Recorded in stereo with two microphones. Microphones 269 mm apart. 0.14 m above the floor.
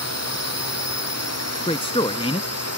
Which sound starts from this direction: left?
A drone, at 0.0 s.